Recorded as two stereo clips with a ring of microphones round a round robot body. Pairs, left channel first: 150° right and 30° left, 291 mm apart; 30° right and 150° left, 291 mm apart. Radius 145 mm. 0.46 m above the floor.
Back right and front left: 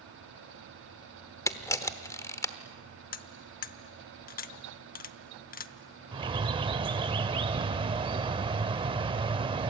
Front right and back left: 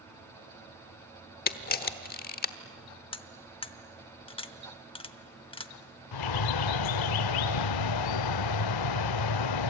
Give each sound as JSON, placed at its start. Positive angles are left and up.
{"t": 1.5, "sound": "a camera shutter", "azimuth_deg": -75, "distance_m": 1.1}
{"t": 3.1, "sound": "cutlery clinking", "azimuth_deg": -100, "distance_m": 0.8}
{"t": 6.1, "sound": "a bird", "azimuth_deg": -45, "distance_m": 0.5}